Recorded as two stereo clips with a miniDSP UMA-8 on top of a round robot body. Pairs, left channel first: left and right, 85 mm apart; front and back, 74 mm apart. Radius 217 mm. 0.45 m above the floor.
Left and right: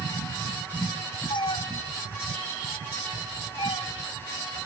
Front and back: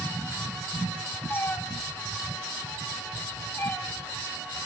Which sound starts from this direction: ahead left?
A cat meowing, at 1.3 s.